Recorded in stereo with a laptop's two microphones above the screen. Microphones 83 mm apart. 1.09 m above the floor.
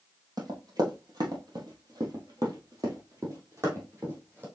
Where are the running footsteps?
50° right (ahead or behind), 1.9 m; by 4.5 s 25° right (ahead or behind), 2 m.